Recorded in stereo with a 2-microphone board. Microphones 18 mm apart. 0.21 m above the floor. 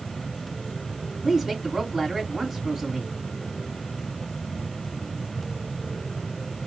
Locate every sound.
1.2 s a woman speaking: 10° right (ahead or behind), 1.9 m